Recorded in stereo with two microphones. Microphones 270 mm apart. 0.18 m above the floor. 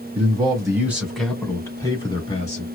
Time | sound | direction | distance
0.1 | a man speaking | 20° right (ahead or behind) | 1.3 m